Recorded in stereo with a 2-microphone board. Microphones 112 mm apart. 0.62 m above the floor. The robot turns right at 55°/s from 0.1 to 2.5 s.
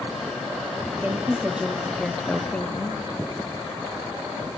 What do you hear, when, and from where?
1.0 s a woman speaking: 20° right (ahead or behind), 0.6 m; by 3.0 s 10° left (ahead or behind), 0.6 m